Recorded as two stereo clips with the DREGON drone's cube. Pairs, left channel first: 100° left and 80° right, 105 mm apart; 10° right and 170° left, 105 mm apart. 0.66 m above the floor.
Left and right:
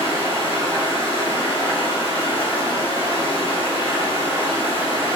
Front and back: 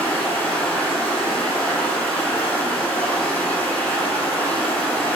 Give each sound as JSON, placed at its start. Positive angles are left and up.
{"t": 0.0, "sound": "running water", "azimuth_deg": 65, "distance_m": 3.0}